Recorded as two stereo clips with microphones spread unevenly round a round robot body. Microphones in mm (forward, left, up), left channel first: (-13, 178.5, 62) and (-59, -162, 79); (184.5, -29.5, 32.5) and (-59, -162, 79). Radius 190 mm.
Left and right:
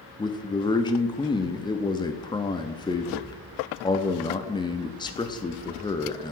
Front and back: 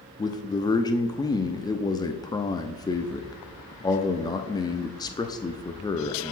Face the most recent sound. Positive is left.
turn(degrees=35)